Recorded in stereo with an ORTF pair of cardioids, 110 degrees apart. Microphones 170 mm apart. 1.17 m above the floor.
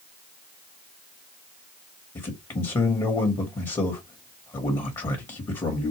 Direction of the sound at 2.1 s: 25° left.